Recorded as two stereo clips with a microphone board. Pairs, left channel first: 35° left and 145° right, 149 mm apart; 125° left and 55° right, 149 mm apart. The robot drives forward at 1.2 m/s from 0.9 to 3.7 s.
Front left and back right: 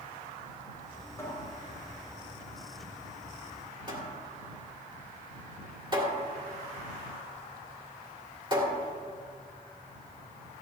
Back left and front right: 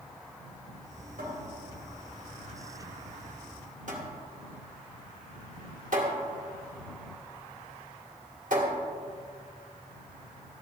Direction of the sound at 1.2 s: 35° right.